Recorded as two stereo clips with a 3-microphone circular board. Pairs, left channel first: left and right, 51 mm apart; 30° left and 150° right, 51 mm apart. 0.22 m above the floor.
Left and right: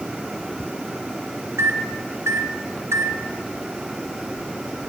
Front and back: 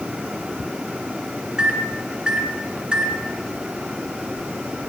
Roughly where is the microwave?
Right.